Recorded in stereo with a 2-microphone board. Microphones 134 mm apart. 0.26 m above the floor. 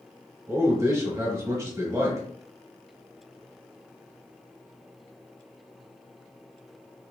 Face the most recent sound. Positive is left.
turn(degrees=-25)  # may be behind; listen again after turning